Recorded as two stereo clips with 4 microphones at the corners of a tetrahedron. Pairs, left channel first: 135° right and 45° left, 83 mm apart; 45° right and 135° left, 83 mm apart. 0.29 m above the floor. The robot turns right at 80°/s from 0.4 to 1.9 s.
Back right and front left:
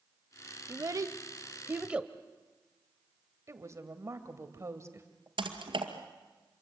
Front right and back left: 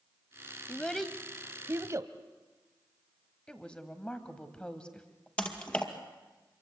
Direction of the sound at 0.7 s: 20° left.